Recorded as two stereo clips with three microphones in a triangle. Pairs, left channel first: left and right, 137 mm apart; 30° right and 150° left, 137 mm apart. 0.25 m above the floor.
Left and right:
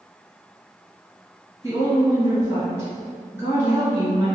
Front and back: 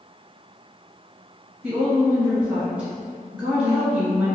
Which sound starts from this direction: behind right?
A woman speaking, at 1.6 s.